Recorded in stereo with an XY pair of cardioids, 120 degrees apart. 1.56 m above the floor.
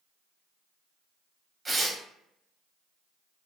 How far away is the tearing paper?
About 0.9 m.